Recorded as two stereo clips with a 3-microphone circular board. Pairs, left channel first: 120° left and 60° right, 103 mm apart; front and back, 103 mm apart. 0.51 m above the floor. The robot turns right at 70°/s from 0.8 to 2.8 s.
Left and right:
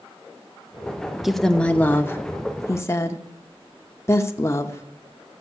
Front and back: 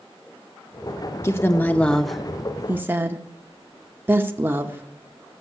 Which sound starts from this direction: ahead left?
A woman speaking, at 1.2 s.